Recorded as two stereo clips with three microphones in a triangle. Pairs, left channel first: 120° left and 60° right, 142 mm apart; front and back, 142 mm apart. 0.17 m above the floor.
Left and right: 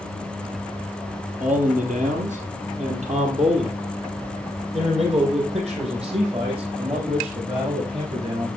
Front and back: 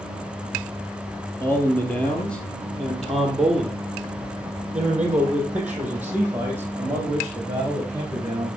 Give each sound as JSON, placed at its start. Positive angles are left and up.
{"t": 1.4, "sound": "a man speaking", "azimuth_deg": -75, "distance_m": 3.0}